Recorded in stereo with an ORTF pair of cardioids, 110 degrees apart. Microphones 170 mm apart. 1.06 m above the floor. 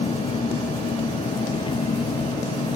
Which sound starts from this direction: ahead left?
An engine running, at 0.0 s.